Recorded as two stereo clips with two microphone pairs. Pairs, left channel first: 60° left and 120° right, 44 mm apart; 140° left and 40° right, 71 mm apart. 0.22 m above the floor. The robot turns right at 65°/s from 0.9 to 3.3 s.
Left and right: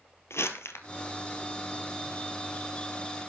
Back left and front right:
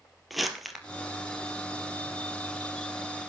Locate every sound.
0.3 s crumpling: 50° left, 1.9 m